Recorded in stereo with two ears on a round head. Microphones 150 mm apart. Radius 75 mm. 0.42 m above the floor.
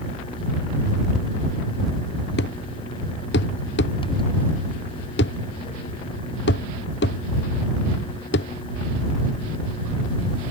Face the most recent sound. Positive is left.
turn(degrees=70)  # may be behind; listen again after turning